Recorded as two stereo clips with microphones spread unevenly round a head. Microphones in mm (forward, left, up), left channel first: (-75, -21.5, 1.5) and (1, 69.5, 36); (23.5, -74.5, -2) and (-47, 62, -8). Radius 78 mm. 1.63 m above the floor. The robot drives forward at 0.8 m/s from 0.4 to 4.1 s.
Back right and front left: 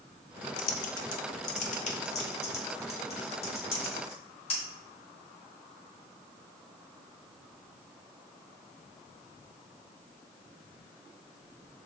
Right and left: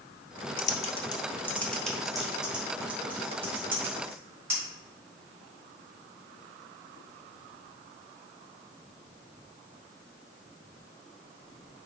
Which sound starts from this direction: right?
Typing on a keyboard, at 0.6 s.